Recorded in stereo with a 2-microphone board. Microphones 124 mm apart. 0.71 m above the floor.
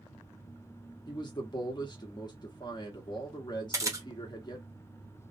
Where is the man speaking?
35° left (ahead or behind), 0.9 m.